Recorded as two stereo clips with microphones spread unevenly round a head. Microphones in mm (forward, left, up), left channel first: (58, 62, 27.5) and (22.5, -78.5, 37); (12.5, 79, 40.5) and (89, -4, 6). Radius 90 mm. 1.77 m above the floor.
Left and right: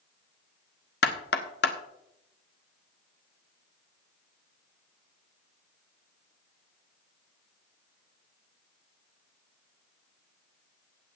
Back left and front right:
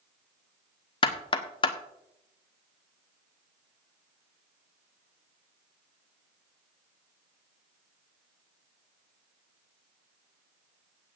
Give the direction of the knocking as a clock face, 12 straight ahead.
8 o'clock.